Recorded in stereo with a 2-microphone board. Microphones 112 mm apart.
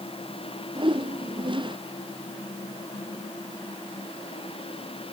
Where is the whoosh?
50° right (ahead or behind).